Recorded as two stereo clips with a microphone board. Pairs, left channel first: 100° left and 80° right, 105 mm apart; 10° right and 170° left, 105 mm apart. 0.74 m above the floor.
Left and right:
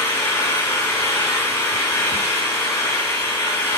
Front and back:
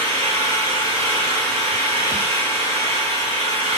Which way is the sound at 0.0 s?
165° left.